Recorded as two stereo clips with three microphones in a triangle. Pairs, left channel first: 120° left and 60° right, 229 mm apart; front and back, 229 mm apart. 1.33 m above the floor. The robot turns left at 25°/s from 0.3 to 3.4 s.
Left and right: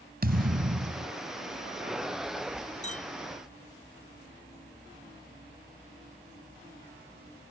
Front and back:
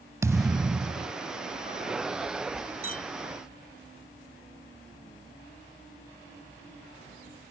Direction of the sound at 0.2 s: 105° right.